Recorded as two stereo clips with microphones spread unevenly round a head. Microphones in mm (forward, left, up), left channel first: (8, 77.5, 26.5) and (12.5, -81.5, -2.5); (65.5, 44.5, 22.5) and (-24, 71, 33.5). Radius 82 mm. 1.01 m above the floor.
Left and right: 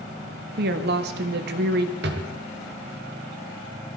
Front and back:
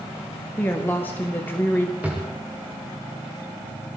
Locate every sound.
0.6 s a woman speaking: 90° right, 1.7 m
2.0 s a drawer: 115° right, 2.0 m